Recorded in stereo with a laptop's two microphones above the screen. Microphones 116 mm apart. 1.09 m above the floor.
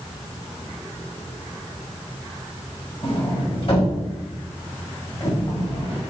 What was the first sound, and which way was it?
A sliding door, 55° left (ahead or behind).